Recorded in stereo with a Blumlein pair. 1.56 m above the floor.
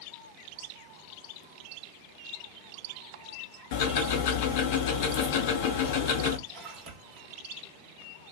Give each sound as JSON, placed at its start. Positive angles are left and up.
{"t": 3.7, "sound": "ticking", "azimuth_deg": 50, "distance_m": 0.7}
{"t": 6.5, "sound": "a splash", "azimuth_deg": -35, "distance_m": 0.9}